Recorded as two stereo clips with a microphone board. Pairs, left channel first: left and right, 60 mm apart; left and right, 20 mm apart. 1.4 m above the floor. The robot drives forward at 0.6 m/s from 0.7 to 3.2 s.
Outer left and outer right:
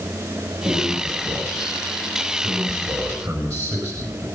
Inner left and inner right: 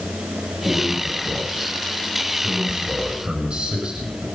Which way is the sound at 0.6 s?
80° right.